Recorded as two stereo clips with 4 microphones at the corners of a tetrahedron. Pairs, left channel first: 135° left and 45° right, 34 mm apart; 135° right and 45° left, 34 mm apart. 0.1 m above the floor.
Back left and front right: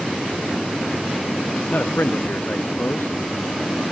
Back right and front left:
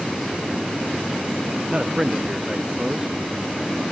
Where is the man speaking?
110° left.